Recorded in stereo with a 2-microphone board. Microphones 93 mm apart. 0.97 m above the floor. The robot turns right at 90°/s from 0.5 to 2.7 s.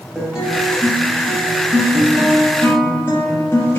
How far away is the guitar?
About 0.8 m.